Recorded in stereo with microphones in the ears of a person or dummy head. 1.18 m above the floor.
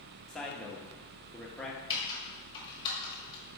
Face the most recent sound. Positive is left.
turn(degrees=25)  # may be behind; listen again after turning